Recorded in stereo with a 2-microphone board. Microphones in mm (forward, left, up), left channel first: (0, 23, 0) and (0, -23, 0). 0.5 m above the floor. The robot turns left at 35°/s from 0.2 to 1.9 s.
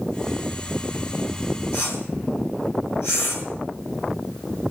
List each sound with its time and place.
1.7 s a whoosh: 60° left (ahead or behind), 5 m; by 3.5 s 65° left (ahead or behind), 5 m